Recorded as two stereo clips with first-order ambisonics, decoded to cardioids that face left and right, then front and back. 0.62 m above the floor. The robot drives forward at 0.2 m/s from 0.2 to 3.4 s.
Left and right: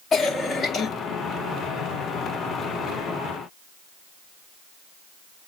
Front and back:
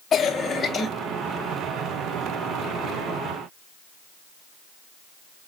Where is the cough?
45° left, 1.2 m; by 0.9 s 50° left, 1.2 m.